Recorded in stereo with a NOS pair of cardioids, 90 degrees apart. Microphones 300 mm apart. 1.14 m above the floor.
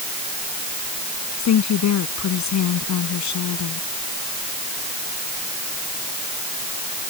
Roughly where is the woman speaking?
Ahead left.